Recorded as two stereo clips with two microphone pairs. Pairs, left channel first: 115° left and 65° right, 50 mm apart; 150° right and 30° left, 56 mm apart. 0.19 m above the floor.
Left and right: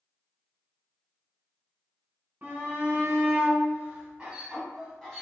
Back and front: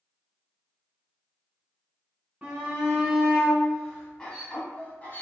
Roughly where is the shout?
Ahead right.